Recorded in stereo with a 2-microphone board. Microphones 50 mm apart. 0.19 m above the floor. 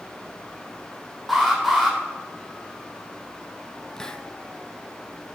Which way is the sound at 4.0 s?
15° left (ahead or behind).